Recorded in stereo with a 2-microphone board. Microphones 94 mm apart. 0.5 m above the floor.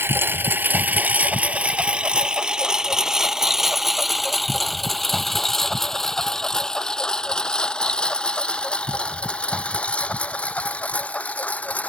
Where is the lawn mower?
25° right (ahead or behind); by 11.9 s 15° left (ahead or behind).